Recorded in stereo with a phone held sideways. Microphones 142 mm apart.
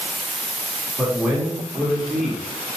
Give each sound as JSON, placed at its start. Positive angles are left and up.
{"t": 1.0, "sound": "a man speaking", "side_deg": -10, "distance_m": 2.0}